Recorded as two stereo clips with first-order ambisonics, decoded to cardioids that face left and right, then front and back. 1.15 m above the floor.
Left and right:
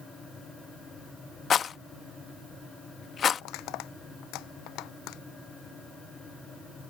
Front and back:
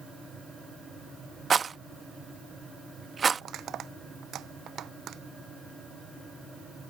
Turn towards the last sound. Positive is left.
turn(degrees=125)